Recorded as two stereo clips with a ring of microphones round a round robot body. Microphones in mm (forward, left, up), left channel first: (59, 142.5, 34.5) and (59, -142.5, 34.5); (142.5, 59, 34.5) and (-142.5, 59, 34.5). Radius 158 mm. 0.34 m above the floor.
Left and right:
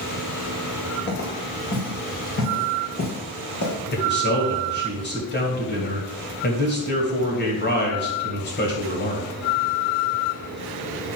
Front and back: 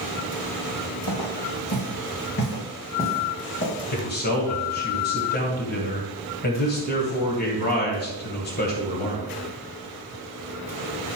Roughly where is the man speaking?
Ahead left.